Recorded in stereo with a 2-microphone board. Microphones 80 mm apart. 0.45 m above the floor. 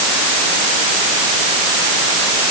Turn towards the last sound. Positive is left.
No sound to turn to.